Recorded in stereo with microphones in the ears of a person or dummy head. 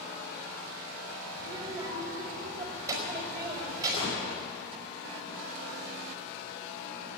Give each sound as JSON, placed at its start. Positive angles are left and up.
{"t": 1.4, "sound": "a child speaking", "side_deg": -20, "distance_m": 5.0}
{"t": 3.9, "sound": "a gunshot", "side_deg": 35, "distance_m": 5.5}